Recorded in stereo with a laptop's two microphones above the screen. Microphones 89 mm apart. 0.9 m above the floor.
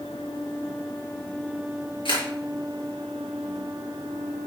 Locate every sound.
2.0 s a camera shutter: 70° left (ahead or behind), 6.5 m